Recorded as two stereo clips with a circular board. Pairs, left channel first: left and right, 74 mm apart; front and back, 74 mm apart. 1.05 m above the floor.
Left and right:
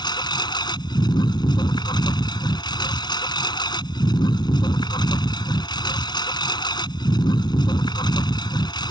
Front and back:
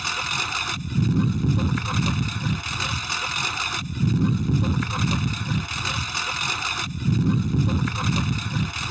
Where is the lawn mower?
90° left.